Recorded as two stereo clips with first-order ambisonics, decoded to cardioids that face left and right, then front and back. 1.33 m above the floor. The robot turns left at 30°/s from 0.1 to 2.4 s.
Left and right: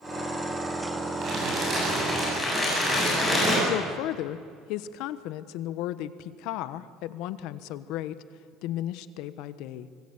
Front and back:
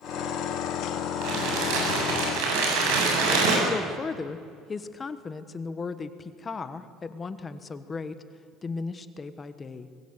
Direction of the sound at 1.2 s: 145° right.